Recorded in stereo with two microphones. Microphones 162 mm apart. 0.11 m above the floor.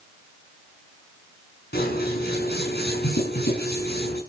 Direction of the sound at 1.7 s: 85° left.